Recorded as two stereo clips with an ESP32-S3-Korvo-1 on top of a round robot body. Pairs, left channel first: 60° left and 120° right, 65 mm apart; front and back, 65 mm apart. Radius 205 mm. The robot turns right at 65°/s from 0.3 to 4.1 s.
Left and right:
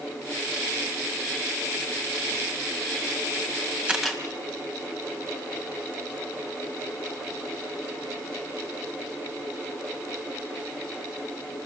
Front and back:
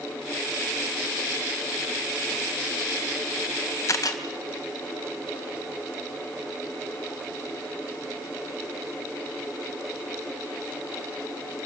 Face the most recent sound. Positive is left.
turn(degrees=-35)